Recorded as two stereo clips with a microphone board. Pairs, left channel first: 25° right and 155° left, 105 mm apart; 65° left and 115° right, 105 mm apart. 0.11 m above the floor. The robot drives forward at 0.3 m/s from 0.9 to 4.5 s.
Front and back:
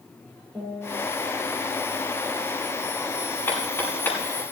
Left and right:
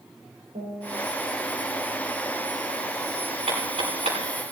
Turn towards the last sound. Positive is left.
turn(degrees=-90)